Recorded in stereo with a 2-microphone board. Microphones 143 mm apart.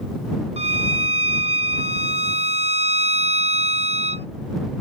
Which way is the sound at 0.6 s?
50° right (ahead or behind).